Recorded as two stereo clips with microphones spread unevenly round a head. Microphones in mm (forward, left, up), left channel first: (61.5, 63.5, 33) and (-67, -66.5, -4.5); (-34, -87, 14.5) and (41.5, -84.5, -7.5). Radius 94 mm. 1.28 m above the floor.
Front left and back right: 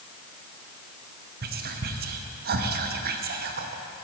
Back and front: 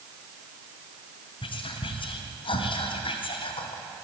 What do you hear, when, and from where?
1.4 s whispering: 170° right, 0.7 m